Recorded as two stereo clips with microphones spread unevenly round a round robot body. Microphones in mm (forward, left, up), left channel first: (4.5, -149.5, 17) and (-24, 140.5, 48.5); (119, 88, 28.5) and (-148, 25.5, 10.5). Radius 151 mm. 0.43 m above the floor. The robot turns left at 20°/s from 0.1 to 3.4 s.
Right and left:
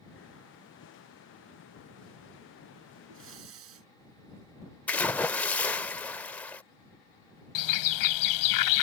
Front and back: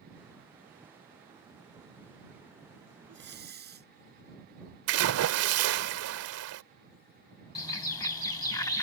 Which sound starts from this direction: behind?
A splash, at 4.9 s.